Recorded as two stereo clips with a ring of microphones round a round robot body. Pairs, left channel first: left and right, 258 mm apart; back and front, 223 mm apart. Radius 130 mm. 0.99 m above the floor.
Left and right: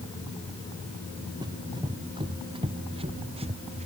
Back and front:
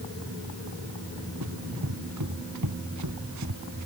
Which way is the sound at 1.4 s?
15° right.